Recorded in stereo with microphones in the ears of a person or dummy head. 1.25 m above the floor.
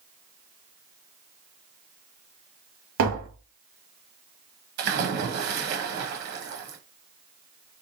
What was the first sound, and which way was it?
Tapping, 65° right (ahead or behind).